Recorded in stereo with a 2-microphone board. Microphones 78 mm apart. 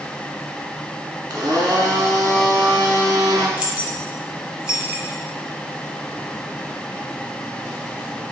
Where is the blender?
60° right (ahead or behind), 1.0 m.